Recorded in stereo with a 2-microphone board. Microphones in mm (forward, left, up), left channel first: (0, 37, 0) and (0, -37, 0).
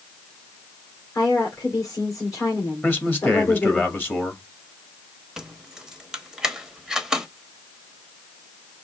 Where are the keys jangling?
5° right (ahead or behind), 1.0 m.